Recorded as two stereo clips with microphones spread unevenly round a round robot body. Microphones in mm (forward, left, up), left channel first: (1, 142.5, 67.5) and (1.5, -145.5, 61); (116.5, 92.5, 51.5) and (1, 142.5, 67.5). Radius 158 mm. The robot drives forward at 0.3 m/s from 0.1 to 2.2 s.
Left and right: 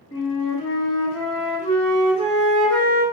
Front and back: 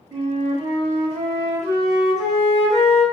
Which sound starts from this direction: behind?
A flute, at 0.1 s.